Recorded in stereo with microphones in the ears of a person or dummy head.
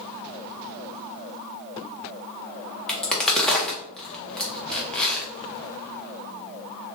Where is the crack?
5° left (ahead or behind), 0.6 m.